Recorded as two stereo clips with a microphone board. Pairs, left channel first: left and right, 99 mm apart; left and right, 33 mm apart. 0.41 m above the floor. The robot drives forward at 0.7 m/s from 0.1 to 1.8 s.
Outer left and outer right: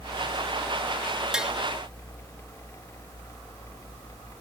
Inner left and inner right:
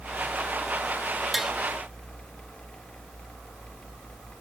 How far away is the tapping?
About 0.8 m.